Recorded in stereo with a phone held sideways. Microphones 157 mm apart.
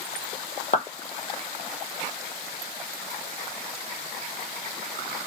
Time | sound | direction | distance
0.7 | a clap | 50° left (ahead or behind) | 0.8 m